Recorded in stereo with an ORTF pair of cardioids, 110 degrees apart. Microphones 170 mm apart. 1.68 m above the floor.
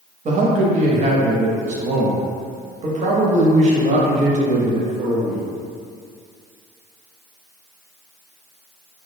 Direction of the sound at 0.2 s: 45° right.